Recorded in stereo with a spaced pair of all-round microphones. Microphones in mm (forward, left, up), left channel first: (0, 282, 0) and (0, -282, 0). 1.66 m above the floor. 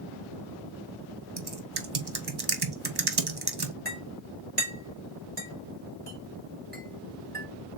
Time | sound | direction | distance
1.4 | typing on a keyboard | 45° right (ahead or behind) | 0.8 m
3.9 | a clink | 15° right (ahead or behind) | 2.5 m